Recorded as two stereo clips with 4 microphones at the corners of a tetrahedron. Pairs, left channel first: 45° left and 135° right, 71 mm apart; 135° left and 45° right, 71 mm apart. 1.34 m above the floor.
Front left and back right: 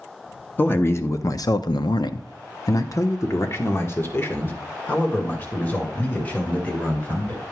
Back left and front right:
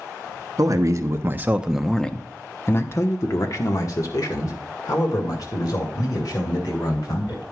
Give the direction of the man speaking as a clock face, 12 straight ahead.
12 o'clock.